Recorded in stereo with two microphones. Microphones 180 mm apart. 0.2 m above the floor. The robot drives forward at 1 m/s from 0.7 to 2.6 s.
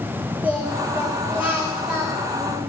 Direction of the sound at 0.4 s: 5° right (ahead or behind).